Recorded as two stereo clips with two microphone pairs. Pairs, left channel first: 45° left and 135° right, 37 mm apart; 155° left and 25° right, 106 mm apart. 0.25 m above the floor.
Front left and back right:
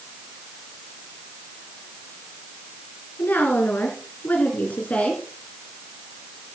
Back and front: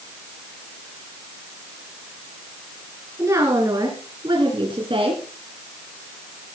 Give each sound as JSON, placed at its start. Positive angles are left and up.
{"t": 3.2, "sound": "a woman speaking", "azimuth_deg": 35, "distance_m": 3.0}